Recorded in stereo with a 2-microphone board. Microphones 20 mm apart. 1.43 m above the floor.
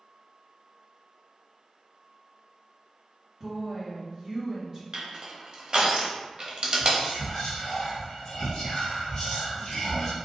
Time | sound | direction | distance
3.4 | a woman speaking | 10° right (ahead or behind) | 1.3 m
4.9 | crushing | 45° right (ahead or behind) | 0.7 m
6.8 | whispering | 35° left (ahead or behind) | 1.3 m